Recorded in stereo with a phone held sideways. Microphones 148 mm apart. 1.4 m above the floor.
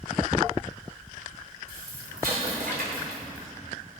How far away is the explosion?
About 3 m.